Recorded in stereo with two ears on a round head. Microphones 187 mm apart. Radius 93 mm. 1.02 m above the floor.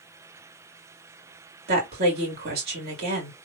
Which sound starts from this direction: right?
A woman speaking, at 1.7 s.